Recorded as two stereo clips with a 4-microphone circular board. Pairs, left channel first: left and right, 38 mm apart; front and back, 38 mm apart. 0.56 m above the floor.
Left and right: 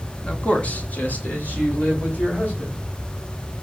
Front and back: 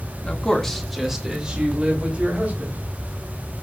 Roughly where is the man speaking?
Ahead left.